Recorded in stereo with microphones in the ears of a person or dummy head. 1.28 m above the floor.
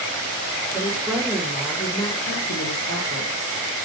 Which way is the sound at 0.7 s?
15° right (ahead or behind).